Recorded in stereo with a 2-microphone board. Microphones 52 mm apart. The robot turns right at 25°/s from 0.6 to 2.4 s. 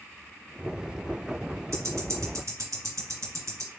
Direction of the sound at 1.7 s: 55° right (ahead or behind).